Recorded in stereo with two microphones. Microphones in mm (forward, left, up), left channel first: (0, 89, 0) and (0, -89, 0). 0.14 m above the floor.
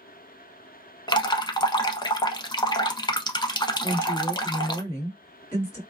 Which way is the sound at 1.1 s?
25° left (ahead or behind).